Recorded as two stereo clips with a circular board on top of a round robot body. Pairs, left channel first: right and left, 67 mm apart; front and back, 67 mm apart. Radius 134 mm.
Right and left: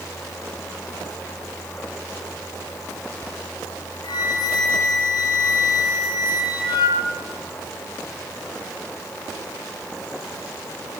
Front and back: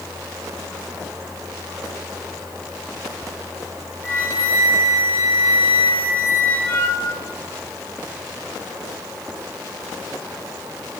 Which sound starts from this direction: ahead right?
A flute, at 4.0 s.